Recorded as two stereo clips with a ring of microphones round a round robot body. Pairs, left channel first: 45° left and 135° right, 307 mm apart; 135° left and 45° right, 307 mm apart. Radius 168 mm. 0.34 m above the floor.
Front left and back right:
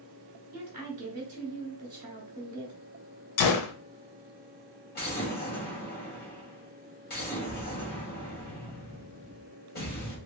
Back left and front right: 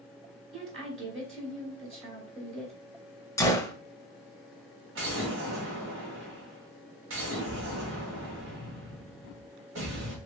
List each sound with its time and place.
0.5 s a woman speaking: 100° right, 1.5 m
3.4 s a gunshot: 55° left, 0.6 m
5.0 s an explosion: 5° right, 2 m